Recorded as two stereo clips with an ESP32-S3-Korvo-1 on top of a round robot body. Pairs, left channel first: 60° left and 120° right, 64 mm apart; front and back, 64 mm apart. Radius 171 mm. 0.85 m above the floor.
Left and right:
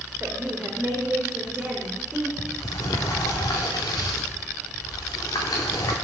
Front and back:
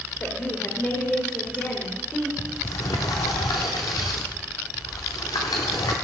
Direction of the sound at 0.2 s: 55° right.